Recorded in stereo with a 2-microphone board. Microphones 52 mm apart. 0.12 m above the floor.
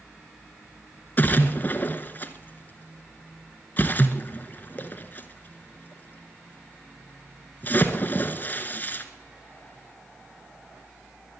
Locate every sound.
1.2 s a splash: 35° left (ahead or behind), 1.2 m